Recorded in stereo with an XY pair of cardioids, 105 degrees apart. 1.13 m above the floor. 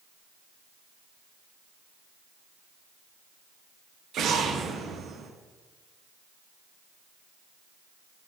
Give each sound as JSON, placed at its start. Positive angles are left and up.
{"t": 4.1, "sound": "an explosion", "azimuth_deg": -65, "distance_m": 1.0}